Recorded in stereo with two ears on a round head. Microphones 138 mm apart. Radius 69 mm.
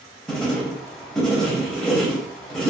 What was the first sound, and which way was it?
Writing, 5° left (ahead or behind).